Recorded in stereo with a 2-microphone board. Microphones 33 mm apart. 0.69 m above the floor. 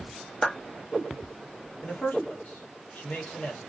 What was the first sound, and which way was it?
A clap, 15° left (ahead or behind).